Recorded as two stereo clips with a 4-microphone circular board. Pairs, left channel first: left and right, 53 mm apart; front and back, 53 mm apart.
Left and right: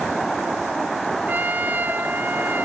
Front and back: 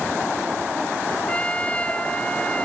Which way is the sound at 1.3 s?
55° right.